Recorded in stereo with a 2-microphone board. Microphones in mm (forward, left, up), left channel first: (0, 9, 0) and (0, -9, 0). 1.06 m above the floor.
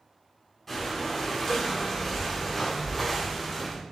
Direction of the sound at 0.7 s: 15° left (ahead or behind).